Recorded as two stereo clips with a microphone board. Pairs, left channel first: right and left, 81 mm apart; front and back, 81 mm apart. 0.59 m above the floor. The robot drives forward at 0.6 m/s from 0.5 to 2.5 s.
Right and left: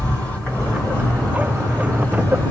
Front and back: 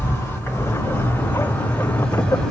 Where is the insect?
30° right, 2.5 m; by 2.5 s 80° right, 2.0 m.